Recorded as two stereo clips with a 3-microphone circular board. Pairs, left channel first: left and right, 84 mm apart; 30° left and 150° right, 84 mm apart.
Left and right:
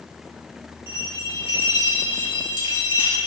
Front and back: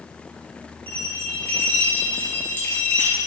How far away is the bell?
About 3.5 m.